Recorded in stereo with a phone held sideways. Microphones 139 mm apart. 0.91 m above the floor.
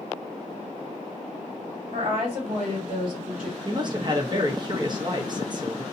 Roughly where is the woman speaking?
Right.